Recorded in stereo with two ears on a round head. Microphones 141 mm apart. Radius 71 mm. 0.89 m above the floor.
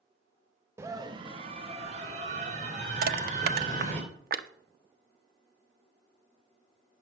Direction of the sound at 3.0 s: 65° right (ahead or behind).